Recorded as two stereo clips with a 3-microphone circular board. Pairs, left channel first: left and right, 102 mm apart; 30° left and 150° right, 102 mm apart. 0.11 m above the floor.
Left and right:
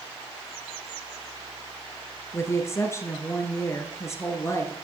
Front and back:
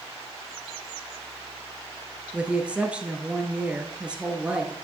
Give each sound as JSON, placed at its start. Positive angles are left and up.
{"t": 2.3, "sound": "a woman speaking", "azimuth_deg": 135, "distance_m": 1.3}